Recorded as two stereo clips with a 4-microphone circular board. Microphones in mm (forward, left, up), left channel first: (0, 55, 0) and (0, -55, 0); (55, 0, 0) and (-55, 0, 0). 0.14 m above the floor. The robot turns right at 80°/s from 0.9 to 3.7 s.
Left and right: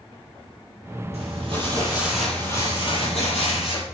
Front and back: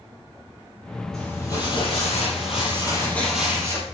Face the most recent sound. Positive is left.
turn(degrees=120)